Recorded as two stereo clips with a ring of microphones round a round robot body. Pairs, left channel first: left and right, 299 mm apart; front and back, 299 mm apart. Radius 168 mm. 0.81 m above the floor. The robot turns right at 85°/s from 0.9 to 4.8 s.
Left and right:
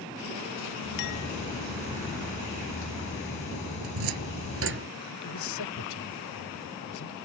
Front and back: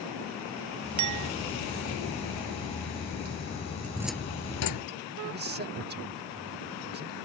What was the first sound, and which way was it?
A clink, 145° left.